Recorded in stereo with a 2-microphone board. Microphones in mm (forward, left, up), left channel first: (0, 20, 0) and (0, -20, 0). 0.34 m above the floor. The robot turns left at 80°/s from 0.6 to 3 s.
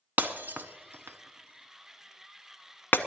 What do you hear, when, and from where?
0.2 s breaking glass: 50° right (ahead or behind), 0.8 m; by 3.0 s 60° left (ahead or behind), 0.8 m